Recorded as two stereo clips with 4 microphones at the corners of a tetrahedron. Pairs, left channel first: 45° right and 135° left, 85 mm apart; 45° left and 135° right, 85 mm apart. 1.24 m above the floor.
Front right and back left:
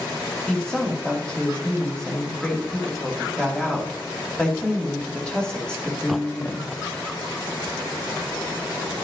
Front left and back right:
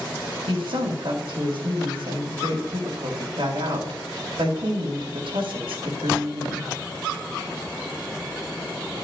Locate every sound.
0.5 s a woman speaking: 125° right, 2.5 m